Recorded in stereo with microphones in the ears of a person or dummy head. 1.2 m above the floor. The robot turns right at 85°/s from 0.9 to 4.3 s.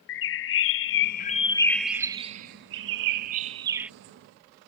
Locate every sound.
0.1 s a bird: 100° left; by 3.9 s 5° right